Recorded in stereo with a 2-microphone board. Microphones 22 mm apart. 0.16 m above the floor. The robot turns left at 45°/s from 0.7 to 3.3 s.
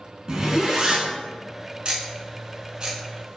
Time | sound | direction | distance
0.3 | a zipper | 35° right (ahead or behind) | 0.6 m
1.9 | ticking | 45° right (ahead or behind) | 0.5 m